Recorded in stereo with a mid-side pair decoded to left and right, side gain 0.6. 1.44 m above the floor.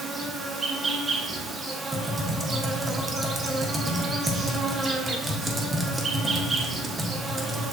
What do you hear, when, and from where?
0.0 s an insect: 30° right, 0.8 m
1.9 s typing on a keyboard: 20° right, 1.0 m